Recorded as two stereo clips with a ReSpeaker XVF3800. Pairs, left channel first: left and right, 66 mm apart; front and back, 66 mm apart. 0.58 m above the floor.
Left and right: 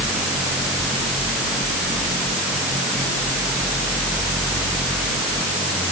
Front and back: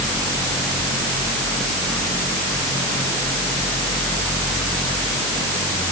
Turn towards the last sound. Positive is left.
No sound to turn to.